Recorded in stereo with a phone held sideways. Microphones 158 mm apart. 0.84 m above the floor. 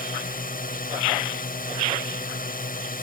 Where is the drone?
65° left (ahead or behind).